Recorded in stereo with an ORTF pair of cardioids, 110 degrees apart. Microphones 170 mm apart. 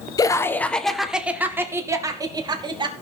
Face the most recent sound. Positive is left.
turn(degrees=-25)